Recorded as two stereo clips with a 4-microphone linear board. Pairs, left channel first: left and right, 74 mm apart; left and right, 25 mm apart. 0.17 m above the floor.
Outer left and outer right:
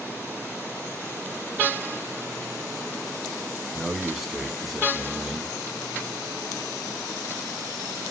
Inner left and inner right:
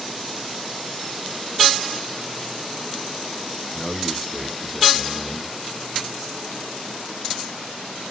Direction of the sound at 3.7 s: 5° right (ahead or behind).